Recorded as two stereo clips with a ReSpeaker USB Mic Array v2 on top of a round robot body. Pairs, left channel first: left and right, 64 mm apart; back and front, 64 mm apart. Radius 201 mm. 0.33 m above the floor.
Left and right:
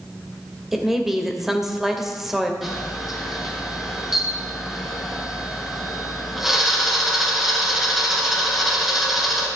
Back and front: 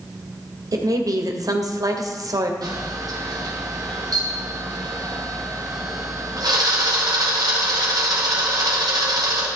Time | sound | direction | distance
0.7 | a woman speaking | 5° right | 2.5 m
2.6 | a camera shutter | 5° right | 3.5 m